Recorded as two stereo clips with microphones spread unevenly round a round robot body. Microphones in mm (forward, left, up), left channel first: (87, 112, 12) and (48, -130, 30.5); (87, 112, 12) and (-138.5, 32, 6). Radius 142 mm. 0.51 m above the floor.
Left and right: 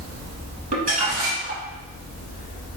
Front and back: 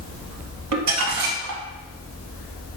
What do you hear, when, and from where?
0.7 s crumpling: 165° right, 0.9 m